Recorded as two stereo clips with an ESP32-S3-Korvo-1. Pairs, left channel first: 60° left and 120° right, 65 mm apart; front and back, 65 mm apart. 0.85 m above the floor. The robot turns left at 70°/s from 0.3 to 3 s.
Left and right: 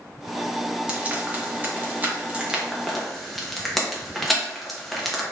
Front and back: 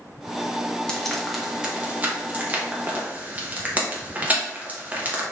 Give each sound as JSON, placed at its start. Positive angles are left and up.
{"t": 0.9, "sound": "frying", "azimuth_deg": -65, "distance_m": 0.7}